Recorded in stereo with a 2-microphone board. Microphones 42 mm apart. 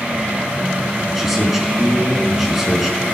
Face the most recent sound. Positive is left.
turn(degrees=-5)  # may be behind; listen again after turning